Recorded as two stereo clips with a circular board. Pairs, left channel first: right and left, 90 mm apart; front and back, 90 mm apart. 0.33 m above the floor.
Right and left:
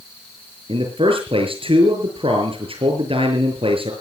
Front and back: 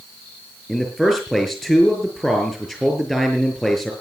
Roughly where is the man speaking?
Left.